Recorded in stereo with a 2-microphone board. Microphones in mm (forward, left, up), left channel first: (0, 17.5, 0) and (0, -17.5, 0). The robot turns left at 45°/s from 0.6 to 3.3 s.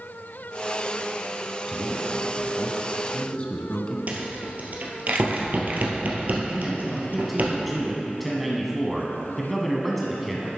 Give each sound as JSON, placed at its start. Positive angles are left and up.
{"t": 1.7, "sound": "a man speaking", "azimuth_deg": -170, "distance_m": 1.2}
{"t": 4.1, "sound": "a rattle", "side_deg": -50, "distance_m": 1.5}
{"t": 6.5, "sound": "a man speaking", "side_deg": 0, "distance_m": 1.0}